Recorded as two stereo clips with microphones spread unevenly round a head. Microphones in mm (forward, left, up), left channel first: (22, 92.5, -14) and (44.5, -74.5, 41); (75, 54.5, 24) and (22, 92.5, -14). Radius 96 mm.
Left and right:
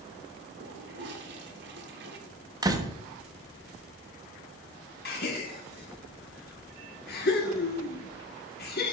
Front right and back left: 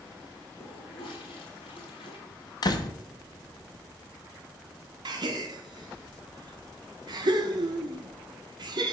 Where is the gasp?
140° left, 1.3 m.